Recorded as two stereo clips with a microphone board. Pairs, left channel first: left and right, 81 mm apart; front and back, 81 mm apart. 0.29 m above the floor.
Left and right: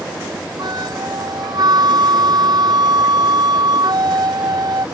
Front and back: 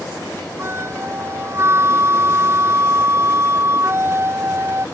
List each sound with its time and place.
0.6 s a flute: 125° right